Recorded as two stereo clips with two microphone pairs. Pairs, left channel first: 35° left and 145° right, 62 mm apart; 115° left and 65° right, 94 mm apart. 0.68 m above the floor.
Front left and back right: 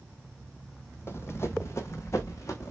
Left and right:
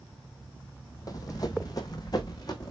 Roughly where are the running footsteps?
Left.